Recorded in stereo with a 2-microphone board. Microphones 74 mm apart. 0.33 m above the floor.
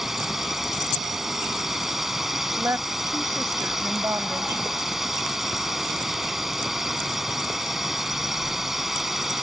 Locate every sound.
0.0 s a drone: 5° right (ahead or behind)
2.6 s a woman speaking: 40° right (ahead or behind)